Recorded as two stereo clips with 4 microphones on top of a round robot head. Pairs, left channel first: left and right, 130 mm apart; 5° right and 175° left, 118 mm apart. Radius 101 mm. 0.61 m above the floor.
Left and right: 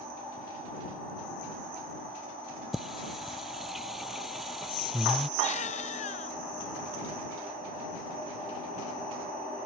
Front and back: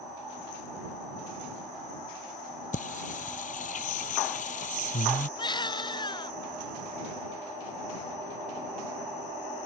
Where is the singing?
Straight ahead.